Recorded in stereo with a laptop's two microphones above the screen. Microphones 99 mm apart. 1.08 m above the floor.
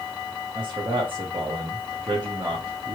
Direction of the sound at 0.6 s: 55° right (ahead or behind).